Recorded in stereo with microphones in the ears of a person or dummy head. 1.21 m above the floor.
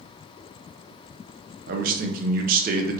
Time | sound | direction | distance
1.7 | a man speaking | 45° right (ahead or behind) | 0.5 m